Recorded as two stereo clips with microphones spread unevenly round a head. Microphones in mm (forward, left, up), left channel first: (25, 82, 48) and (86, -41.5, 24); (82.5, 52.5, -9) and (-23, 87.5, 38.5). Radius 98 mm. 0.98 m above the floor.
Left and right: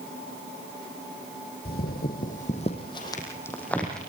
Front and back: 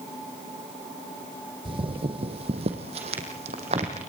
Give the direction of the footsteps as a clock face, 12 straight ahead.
7 o'clock.